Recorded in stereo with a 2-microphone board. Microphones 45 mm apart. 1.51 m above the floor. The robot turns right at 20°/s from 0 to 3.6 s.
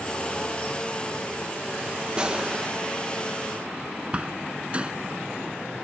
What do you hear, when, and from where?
2.2 s a gunshot: 20° right (ahead or behind); by 2.7 s 30° right (ahead or behind)
4.1 s a door slam: 25° right (ahead or behind)